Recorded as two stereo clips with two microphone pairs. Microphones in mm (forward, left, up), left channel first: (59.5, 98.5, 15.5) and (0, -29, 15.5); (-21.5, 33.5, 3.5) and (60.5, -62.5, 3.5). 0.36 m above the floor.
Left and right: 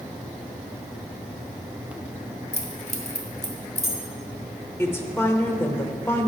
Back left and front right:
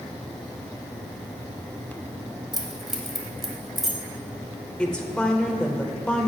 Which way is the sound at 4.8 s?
60° left.